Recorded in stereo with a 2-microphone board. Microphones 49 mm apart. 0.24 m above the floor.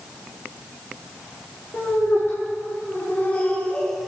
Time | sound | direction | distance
1.7 | laughter | 55° left (ahead or behind) | 3.5 m